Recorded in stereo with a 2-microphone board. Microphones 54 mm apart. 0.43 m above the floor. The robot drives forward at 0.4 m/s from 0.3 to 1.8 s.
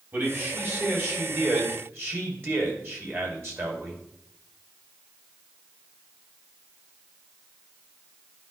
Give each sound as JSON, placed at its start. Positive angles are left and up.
{"t": 0.1, "sound": "a man speaking", "side_deg": -40, "distance_m": 2.5}